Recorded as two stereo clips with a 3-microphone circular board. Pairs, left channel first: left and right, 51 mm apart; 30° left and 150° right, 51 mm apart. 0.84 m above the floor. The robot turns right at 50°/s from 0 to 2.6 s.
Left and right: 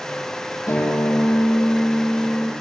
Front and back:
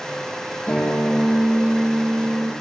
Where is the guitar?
95° left, 8 m; by 2.5 s 170° right, 8 m.